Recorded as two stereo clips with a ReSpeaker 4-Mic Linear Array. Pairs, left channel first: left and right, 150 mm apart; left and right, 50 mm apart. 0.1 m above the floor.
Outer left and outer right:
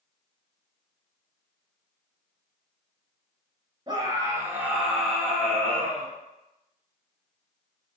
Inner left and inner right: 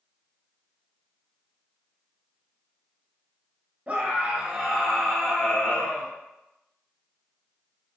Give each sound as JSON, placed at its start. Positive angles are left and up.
{"t": 3.9, "sound": "a scream", "side_deg": -30, "distance_m": 1.2}